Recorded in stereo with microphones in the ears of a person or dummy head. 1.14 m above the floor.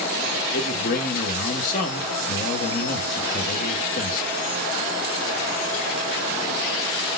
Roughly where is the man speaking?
Left.